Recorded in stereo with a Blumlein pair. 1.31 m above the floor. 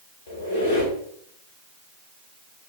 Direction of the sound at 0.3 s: 65° left.